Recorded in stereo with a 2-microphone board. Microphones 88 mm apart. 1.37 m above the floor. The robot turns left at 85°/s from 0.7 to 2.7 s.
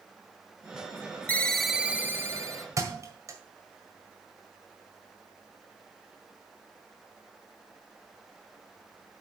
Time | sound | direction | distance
1.3 | a ringtone | 30° left | 0.7 m
2.8 | a thud | 40° right (ahead or behind) | 1.7 m